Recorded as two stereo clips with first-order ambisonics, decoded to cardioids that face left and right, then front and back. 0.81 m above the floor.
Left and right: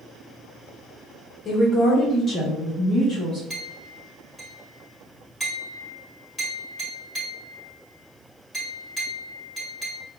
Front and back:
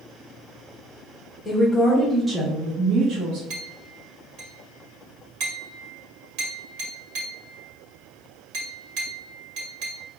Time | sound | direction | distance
1.4 | a woman speaking | 45° left | 0.9 m
3.5 | a clink | 175° left | 2 m